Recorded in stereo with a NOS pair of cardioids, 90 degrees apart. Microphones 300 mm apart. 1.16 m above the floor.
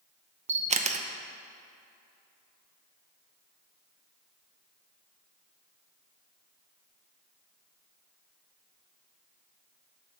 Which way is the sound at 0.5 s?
25° right.